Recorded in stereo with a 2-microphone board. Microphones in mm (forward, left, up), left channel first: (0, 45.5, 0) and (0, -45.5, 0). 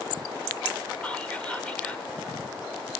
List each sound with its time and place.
1.0 s whispering: 15° left (ahead or behind), 0.8 m